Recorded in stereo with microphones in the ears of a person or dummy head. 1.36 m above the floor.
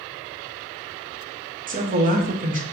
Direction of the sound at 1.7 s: 40° right (ahead or behind).